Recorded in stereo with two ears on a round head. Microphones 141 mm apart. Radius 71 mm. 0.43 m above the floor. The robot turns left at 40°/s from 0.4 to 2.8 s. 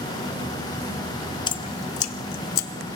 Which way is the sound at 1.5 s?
30° left (ahead or behind).